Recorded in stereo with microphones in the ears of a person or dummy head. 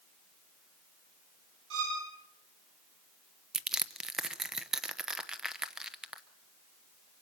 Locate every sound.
1.7 s a violin: 70° right (ahead or behind), 8.5 m
3.5 s crushing: centre (ahead or behind), 0.8 m